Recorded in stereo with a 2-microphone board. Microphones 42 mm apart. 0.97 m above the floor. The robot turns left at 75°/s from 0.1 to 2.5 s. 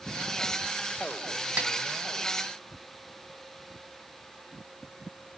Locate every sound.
1.6 s a snare drum: 45° right (ahead or behind), 1.4 m; by 1.7 s 35° right (ahead or behind), 1.4 m